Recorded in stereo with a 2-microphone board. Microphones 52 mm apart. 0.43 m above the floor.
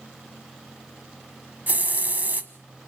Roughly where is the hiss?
Right.